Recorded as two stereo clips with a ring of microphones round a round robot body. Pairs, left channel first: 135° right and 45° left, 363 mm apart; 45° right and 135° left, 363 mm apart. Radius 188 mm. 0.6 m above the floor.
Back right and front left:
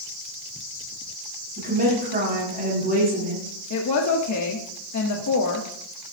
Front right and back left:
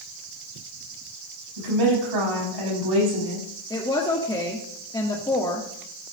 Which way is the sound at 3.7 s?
120° right.